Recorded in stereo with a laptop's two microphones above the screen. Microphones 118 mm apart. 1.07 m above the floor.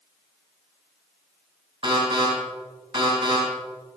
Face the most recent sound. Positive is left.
turn(degrees=-45)  # may be behind; listen again after turning